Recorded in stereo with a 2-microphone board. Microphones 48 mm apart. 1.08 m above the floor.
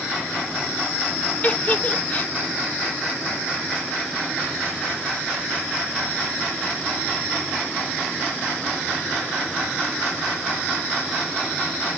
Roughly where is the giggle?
Left.